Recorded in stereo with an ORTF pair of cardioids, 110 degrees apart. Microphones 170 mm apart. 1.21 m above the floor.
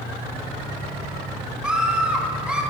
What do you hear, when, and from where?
1.6 s a scream: 5° right, 3.5 m